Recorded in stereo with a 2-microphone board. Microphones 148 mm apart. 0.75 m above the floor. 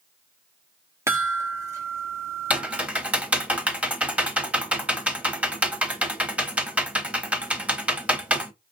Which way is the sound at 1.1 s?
20° right (ahead or behind).